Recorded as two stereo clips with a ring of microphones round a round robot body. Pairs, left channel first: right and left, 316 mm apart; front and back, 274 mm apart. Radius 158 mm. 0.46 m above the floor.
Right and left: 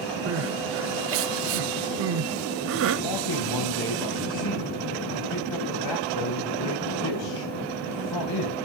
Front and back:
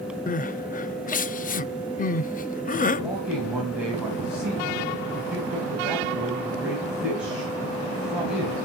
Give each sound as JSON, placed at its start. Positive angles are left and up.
{"t": 0.3, "sound": "crying", "azimuth_deg": 55, "distance_m": 0.5}
{"t": 3.0, "sound": "a man speaking", "azimuth_deg": -95, "distance_m": 3.5}